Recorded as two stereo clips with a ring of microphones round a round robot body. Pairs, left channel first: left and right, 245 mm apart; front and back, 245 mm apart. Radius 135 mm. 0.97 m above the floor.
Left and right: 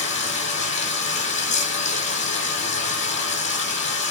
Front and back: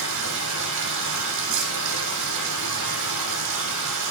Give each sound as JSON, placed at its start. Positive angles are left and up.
{"t": 0.0, "sound": "running water", "azimuth_deg": 155, "distance_m": 7.5}